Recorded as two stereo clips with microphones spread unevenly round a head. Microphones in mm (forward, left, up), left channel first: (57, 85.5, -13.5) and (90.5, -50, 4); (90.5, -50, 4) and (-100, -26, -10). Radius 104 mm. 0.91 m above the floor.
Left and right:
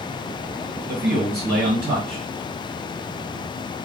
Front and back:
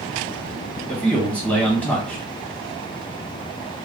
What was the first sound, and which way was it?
A man speaking, 90° right.